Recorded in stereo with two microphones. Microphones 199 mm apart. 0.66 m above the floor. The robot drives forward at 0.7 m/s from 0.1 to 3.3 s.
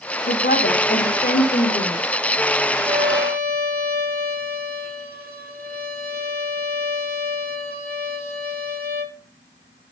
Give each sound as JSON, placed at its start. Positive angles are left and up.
{"t": 0.3, "sound": "a woman speaking", "side_deg": 60, "distance_m": 1.9}
{"t": 2.9, "sound": "a violin", "side_deg": -60, "distance_m": 1.2}